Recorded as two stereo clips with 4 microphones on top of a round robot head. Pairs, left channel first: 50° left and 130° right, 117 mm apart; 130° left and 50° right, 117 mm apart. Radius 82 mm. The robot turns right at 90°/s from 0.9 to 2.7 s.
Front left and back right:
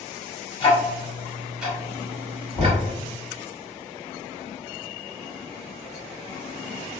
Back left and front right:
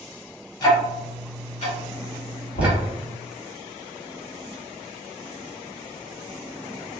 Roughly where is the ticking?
Left.